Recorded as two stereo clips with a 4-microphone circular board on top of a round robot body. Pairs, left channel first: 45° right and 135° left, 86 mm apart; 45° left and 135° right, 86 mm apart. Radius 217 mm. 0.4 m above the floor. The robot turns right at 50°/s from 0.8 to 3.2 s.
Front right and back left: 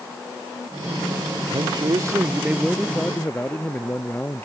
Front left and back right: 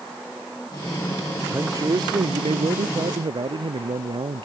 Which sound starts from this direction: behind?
A man speaking, at 1.5 s.